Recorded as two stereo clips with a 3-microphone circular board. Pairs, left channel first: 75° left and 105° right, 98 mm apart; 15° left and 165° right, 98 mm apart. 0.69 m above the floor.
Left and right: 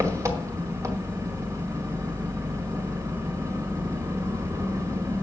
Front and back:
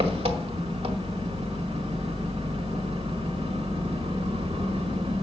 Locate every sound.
0.0 s an engine running: 165° right, 1.5 m